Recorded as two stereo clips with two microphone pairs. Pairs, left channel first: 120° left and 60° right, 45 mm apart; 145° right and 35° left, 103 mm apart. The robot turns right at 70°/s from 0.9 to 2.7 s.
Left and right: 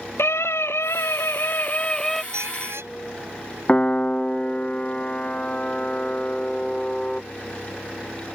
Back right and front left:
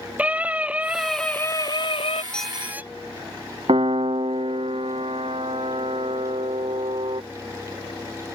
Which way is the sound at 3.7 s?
55° left.